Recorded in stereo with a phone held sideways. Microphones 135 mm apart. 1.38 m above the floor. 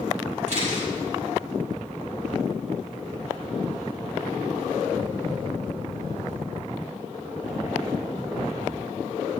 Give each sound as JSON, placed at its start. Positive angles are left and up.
{"t": 0.5, "sound": "a camera shutter", "side_deg": -60, "distance_m": 5.0}